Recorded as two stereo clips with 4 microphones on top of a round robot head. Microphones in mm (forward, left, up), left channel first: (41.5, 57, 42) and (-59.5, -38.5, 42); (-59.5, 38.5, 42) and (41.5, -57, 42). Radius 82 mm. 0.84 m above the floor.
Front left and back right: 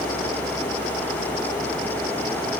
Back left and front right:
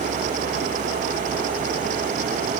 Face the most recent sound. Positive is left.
No sound to turn to.